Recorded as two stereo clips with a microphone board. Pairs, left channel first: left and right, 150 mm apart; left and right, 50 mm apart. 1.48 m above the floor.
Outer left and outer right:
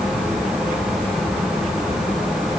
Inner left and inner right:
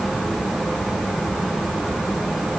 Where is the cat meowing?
No cat meowing in this recording.